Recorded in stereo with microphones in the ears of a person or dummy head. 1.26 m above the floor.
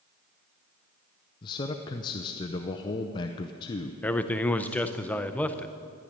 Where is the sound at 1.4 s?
30° left (ahead or behind), 0.5 m.